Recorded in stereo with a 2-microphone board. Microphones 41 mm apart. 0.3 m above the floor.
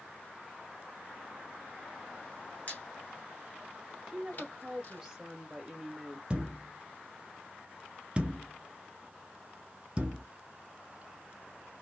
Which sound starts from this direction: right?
A thud, at 6.3 s.